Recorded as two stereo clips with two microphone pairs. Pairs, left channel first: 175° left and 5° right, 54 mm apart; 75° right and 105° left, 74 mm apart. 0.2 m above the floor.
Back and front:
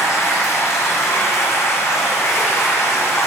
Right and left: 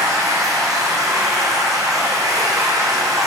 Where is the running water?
145° left, 1.8 m.